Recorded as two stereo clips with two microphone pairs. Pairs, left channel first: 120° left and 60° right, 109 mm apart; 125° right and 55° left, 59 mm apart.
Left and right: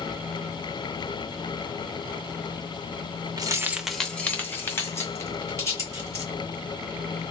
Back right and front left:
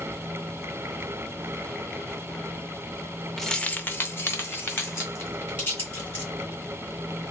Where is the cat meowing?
No cat meowing in this recording.